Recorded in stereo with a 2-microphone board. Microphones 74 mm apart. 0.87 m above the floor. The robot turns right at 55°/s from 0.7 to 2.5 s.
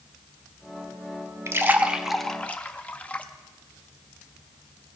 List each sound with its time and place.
1.5 s a splash: 35° right (ahead or behind), 0.6 m; by 3.2 s 20° left (ahead or behind), 0.6 m